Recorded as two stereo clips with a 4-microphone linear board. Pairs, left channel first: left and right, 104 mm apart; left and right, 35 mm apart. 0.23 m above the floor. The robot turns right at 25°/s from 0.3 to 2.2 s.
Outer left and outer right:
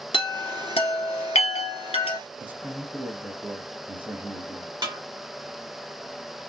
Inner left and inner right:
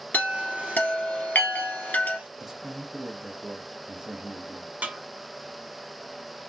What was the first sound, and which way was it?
A chime, 60° left (ahead or behind).